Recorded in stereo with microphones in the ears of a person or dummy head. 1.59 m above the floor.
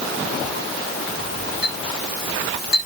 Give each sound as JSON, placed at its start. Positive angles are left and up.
{"t": 1.6, "sound": "a clink", "side_deg": 60, "distance_m": 6.5}